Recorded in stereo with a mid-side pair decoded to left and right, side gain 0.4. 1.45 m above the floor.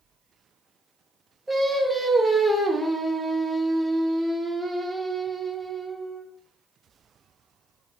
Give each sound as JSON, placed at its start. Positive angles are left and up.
{"t": 1.5, "sound": "singing", "azimuth_deg": -5, "distance_m": 0.6}